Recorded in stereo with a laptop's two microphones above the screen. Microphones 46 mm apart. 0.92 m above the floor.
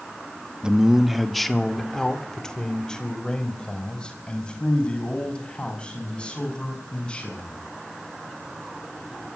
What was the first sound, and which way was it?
A man speaking, 20° right (ahead or behind).